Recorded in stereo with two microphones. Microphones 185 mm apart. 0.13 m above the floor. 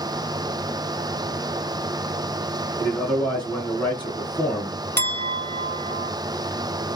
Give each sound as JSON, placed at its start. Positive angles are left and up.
{"t": 2.8, "sound": "a man speaking", "side_deg": 10, "distance_m": 1.4}
{"t": 5.0, "sound": "a clink", "side_deg": 10, "distance_m": 1.4}